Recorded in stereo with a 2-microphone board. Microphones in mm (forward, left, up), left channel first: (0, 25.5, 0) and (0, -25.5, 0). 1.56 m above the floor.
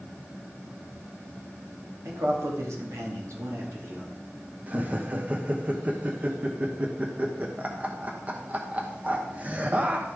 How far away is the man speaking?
About 2.5 m.